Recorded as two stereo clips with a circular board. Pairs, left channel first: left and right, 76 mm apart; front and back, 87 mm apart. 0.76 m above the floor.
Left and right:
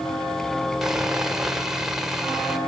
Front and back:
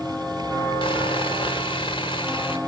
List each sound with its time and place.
0.8 s sawing: 5° right, 2.5 m